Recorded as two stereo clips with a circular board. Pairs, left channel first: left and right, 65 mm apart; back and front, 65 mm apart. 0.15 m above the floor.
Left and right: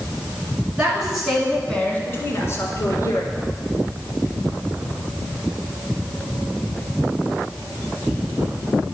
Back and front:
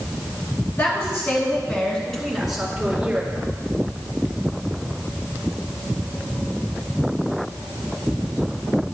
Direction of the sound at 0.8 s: 150° right.